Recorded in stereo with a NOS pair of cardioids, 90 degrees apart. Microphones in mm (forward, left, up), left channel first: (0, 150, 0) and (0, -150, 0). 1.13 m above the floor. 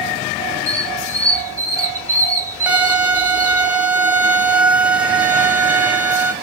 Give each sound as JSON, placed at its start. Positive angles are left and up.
{"t": 0.7, "sound": "a squeak", "azimuth_deg": -10, "distance_m": 1.0}
{"t": 2.7, "sound": "a violin", "azimuth_deg": -5, "distance_m": 0.6}